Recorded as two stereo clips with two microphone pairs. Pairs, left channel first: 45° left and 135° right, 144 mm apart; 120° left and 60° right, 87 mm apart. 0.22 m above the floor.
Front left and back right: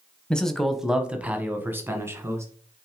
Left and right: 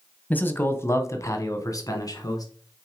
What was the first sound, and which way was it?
A man speaking, 115° left.